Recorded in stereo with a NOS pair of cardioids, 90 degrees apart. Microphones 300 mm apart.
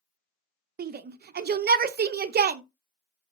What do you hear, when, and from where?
0.8 s a shout: 35° right, 0.6 m